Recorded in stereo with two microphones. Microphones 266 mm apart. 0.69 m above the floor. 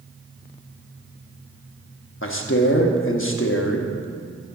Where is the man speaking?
50° left (ahead or behind), 1.0 m.